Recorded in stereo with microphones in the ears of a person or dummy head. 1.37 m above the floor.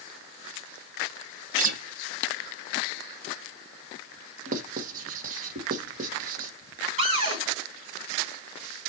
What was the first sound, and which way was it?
A guitar, 45° right (ahead or behind).